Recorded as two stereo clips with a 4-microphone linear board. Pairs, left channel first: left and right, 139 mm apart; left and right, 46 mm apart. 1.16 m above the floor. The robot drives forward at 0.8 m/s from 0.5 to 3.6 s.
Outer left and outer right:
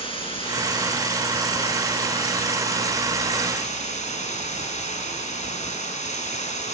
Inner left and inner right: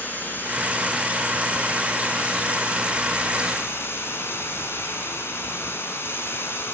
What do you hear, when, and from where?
0.0 s running water: 40° left (ahead or behind), 7.5 m; by 6.7 s 55° left (ahead or behind), 5.5 m